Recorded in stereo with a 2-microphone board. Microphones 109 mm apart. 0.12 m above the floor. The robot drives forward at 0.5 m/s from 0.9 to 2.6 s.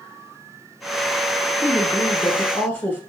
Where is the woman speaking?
20° left (ahead or behind), 1.1 m; by 3.0 s 15° left (ahead or behind), 1.1 m.